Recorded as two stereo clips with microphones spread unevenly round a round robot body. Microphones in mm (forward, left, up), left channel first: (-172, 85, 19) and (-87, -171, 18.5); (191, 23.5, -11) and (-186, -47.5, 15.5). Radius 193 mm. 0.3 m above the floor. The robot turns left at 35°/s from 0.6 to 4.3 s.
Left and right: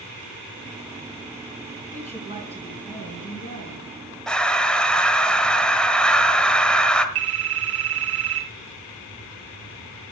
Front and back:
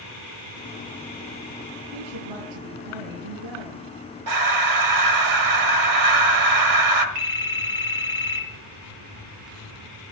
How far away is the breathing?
About 1.4 m.